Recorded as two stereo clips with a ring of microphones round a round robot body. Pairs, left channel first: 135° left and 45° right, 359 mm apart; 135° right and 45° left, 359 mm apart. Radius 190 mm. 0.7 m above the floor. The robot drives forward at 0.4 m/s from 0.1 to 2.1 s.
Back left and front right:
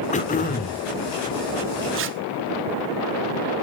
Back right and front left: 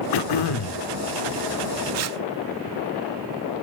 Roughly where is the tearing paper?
Ahead.